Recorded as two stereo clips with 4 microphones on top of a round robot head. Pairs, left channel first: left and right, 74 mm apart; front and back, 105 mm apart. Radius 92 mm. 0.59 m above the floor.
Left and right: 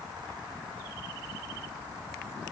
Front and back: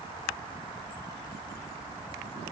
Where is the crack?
No crack in this recording.